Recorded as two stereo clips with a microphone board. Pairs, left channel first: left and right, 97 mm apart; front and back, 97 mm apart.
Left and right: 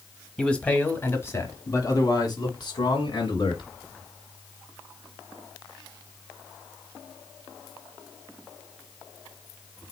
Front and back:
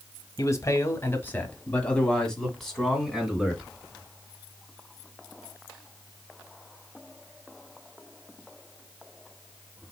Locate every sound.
0.4 s a man speaking: 15° left, 1.1 m; by 3.7 s 95° left, 1.9 m